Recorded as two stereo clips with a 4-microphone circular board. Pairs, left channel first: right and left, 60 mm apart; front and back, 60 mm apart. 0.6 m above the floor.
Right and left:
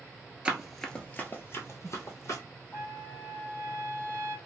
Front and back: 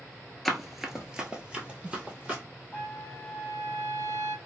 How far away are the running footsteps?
About 0.6 m.